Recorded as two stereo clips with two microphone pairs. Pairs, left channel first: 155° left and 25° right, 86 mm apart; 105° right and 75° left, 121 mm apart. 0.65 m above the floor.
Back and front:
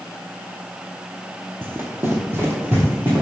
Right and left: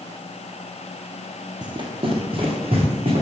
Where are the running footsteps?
35° left, 1.1 m; by 3.2 s 40° left, 2.5 m.